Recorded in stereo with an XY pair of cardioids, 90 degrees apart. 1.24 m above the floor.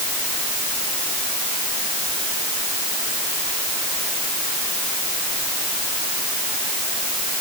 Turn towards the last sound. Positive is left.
No sound to turn to.